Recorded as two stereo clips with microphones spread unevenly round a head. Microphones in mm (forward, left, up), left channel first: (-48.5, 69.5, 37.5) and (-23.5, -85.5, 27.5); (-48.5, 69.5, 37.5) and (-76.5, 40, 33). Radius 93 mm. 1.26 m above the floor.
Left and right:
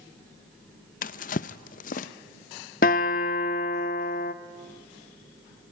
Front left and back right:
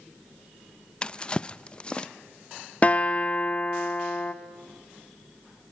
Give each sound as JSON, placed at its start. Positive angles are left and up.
{"t": 1.0, "sound": "a drawer", "azimuth_deg": 95, "distance_m": 0.6}
{"t": 2.8, "sound": "a guitar", "azimuth_deg": 85, "distance_m": 1.0}